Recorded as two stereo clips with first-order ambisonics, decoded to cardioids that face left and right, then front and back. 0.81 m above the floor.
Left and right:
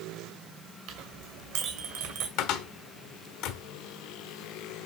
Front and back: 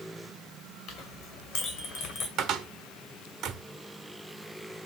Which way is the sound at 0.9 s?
55° right.